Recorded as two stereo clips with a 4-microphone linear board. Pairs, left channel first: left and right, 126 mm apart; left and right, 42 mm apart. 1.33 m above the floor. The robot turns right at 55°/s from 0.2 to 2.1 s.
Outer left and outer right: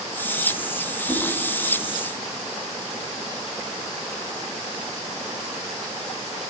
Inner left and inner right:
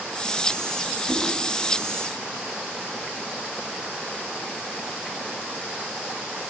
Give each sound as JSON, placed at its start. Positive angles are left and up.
{"t": 1.1, "sound": "a whoosh", "side_deg": 15, "distance_m": 4.0}